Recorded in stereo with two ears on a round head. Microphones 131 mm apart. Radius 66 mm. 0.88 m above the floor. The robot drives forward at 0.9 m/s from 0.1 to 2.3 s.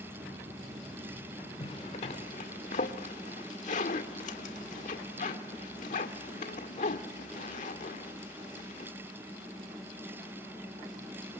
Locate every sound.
1.6 s a zipper: 40° left (ahead or behind), 2.5 m; by 8.9 s 50° left (ahead or behind), 1.9 m